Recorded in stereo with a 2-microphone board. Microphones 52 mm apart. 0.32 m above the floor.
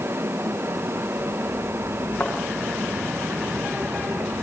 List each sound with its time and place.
2.2 s a thud: 30° left (ahead or behind), 8 m